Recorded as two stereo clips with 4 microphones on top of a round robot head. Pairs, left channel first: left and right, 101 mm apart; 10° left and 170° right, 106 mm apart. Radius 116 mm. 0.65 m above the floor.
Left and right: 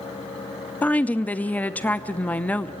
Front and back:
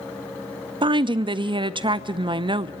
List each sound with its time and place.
0.8 s a woman speaking: 165° left, 0.8 m